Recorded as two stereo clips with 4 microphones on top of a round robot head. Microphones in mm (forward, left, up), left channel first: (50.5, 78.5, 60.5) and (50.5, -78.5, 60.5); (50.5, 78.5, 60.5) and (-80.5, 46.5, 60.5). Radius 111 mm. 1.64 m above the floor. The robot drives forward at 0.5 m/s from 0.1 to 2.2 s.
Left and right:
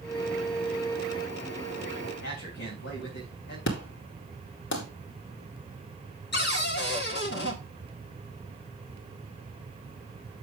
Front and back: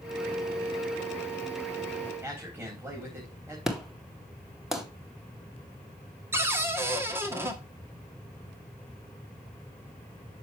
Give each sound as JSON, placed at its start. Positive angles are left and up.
{"t": 2.2, "sound": "a man speaking", "azimuth_deg": 120, "distance_m": 3.5}
{"t": 3.7, "sound": "an explosion", "azimuth_deg": 105, "distance_m": 2.0}
{"t": 6.3, "sound": "a cupboard door", "azimuth_deg": 125, "distance_m": 1.6}